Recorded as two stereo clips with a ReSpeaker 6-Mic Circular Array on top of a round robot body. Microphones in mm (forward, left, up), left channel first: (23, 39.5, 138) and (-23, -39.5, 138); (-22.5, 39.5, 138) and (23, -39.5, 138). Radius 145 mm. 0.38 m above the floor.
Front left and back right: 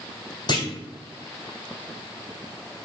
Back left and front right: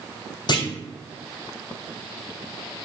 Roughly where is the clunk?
Left.